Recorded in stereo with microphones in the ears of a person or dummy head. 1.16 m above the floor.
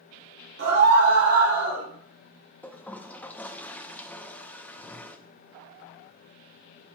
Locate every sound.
0.6 s a scream: 60° right (ahead or behind), 3 m
2.6 s a toilet flushing: 10° left (ahead or behind), 0.5 m